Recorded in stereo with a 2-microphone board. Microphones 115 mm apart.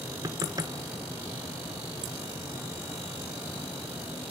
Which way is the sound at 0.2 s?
35° right (ahead or behind).